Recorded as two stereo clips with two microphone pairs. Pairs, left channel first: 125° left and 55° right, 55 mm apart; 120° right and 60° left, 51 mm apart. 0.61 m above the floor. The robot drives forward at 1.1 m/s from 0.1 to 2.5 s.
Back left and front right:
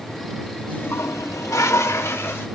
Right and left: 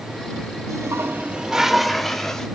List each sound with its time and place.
0.7 s a toilet flushing: 60° left, 0.6 m; by 2.5 s 160° left, 1.7 m